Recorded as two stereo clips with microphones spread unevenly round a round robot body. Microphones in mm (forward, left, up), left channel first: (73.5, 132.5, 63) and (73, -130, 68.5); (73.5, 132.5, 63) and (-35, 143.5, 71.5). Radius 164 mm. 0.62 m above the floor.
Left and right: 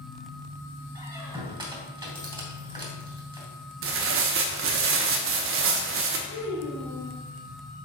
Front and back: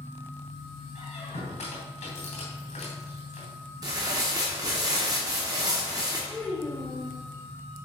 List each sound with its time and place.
0.9 s a squeak: 20° right, 2.5 m
3.8 s tearing paper: 125° right, 0.8 m
6.3 s a child speaking: 75° left, 1.9 m